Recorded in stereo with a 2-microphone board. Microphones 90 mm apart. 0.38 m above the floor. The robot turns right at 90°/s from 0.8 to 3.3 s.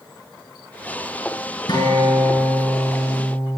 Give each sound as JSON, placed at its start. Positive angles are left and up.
{"t": 1.7, "sound": "a guitar", "azimuth_deg": 130, "distance_m": 6.5}